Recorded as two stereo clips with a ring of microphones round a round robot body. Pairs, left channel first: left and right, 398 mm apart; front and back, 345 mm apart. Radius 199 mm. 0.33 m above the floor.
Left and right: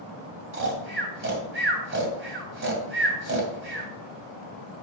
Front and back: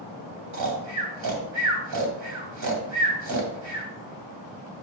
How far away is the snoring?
About 2 m.